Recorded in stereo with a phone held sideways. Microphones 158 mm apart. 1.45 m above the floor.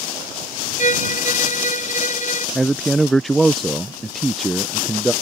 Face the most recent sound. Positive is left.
turn(degrees=0)  # may be behind; listen again after turning